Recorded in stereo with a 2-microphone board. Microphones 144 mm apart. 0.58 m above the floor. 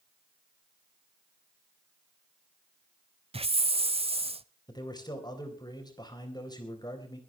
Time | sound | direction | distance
3.3 | a hiss | 45° right (ahead or behind) | 0.5 m
4.7 | a man speaking | 30° left (ahead or behind) | 3.5 m